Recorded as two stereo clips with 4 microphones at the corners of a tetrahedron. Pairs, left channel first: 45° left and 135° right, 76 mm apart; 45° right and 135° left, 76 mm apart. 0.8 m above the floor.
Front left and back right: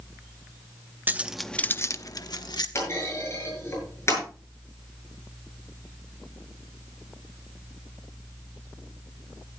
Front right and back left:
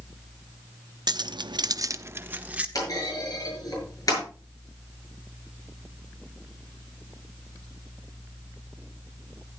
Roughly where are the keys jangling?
Behind.